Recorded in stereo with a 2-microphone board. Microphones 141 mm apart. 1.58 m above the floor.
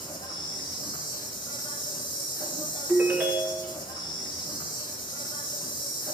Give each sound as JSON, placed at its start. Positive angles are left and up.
{"t": 0.0, "sound": "an insect", "side_deg": 35, "distance_m": 3.5}
{"t": 2.9, "sound": "a ringtone", "side_deg": -15, "distance_m": 1.3}